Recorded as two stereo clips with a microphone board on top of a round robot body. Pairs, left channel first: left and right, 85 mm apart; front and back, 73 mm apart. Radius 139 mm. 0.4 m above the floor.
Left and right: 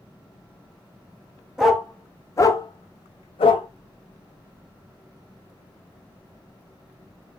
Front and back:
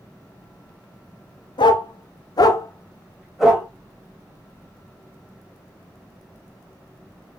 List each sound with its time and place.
1.6 s a dog barking: 5° right, 0.8 m; by 3.7 s 105° left, 0.8 m